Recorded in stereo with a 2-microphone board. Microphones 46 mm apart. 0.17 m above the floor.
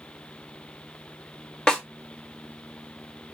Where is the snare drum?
15° left (ahead or behind), 0.7 m.